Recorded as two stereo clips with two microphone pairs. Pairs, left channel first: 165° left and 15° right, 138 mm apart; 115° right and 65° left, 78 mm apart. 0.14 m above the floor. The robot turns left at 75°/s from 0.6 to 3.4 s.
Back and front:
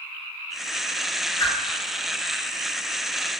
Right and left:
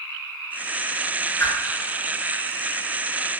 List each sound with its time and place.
1.4 s a whoosh: 155° right, 0.7 m; by 1.5 s 165° right, 0.7 m